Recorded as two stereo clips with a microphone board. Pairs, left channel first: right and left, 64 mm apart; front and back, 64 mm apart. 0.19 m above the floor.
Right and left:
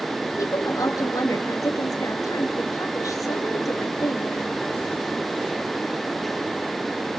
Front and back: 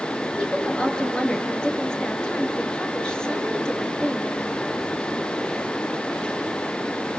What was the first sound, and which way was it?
A woman speaking, 75° right.